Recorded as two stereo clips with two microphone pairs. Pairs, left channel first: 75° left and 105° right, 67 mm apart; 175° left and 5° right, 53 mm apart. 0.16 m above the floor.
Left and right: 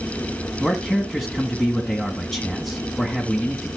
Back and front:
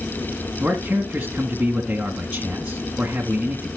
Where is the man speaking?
Straight ahead, 1.7 m.